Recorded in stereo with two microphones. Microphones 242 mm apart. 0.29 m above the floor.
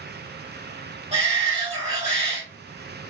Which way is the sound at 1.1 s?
30° right (ahead or behind).